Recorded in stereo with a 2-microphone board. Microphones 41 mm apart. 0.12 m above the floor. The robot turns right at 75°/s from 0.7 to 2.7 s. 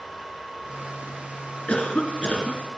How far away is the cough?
About 1.7 m.